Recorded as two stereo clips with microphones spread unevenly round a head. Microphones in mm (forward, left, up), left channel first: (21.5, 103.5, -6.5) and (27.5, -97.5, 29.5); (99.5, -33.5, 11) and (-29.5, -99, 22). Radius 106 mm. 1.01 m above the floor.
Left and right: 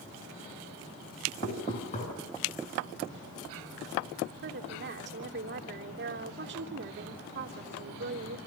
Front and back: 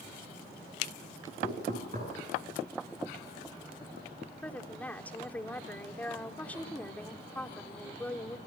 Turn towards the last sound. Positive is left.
turn(degrees=-55)